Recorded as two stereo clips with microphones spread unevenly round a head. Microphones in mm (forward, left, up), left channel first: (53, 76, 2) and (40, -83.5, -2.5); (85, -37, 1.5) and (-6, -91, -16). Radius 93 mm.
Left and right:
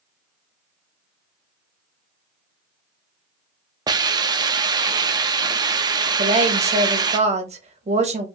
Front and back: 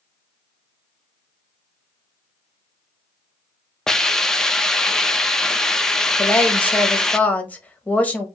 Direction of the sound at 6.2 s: 50° right.